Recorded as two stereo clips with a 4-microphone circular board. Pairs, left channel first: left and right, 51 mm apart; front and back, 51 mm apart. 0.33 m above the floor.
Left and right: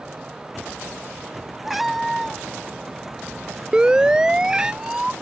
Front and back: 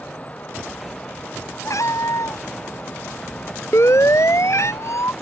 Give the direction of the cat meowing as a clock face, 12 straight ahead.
12 o'clock.